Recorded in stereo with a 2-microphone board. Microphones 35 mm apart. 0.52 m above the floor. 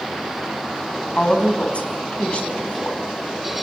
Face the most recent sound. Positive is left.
turn(degrees=40)  # may be behind; listen again after turning